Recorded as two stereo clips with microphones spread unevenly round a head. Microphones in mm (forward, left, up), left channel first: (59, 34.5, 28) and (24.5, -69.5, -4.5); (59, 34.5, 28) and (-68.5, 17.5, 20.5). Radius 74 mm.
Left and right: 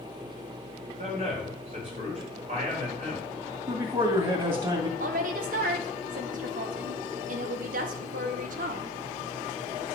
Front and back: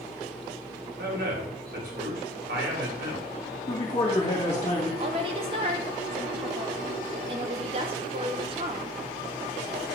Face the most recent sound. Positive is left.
turn(degrees=-115)